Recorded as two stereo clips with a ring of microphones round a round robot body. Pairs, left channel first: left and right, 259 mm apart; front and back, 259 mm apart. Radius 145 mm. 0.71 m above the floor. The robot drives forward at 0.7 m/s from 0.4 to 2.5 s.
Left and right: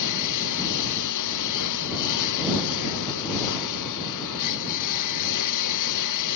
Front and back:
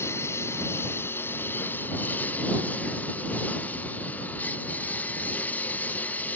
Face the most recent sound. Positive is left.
turn(degrees=85)